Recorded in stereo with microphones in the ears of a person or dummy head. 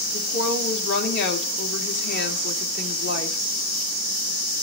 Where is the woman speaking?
60° left (ahead or behind), 2.5 m.